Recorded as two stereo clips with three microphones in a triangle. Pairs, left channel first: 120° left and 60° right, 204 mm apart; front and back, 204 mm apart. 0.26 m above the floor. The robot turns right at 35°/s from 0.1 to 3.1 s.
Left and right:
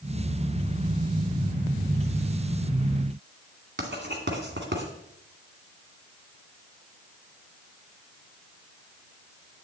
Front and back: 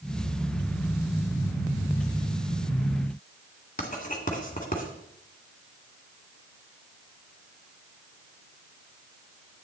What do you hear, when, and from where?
3.8 s writing: 45° right, 2 m